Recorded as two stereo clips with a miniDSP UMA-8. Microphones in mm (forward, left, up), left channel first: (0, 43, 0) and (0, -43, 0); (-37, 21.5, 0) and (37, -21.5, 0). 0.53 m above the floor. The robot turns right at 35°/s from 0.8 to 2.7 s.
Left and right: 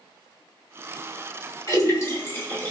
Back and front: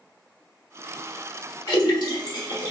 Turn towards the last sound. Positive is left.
turn(degrees=160)